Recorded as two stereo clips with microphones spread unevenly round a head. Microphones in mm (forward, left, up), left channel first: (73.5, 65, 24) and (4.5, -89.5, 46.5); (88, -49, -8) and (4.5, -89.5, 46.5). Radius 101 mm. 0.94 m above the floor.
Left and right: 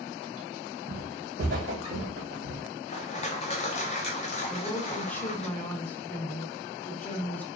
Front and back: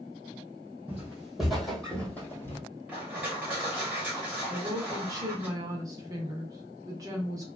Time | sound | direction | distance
0.9 | footsteps | 110° right | 1.7 m
2.9 | crushing | 115° left | 0.6 m
4.5 | a woman speaking | 120° left | 0.7 m